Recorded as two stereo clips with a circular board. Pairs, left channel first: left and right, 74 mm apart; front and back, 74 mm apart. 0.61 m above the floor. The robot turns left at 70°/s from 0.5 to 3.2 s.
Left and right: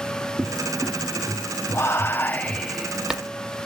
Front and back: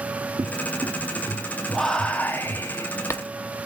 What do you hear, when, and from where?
0.4 s a cupboard door: straight behind, 4.5 m; by 2.6 s 30° left, 4.5 m
1.7 s whispering: 85° left, 0.7 m; by 3.2 s 20° right, 0.7 m